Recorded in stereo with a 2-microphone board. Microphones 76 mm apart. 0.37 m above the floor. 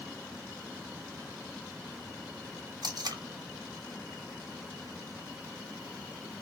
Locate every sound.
2.8 s tape being pulled: 65° right (ahead or behind), 1.2 m